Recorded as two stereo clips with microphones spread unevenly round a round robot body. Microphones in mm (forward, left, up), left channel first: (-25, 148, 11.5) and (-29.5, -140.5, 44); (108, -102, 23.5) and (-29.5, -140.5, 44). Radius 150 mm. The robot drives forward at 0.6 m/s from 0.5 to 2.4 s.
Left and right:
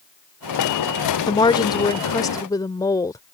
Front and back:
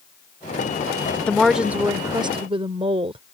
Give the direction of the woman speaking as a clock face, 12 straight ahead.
10 o'clock.